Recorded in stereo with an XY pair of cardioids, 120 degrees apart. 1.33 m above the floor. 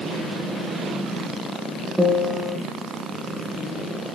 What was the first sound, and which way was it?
A piano, 10° right.